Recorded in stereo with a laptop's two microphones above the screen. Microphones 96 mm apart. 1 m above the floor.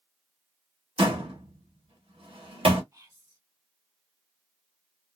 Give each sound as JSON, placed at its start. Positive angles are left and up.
{"t": 1.0, "sound": "a door slam", "side_deg": -80, "distance_m": 1.3}
{"t": 2.9, "sound": "whispering", "side_deg": -35, "distance_m": 1.5}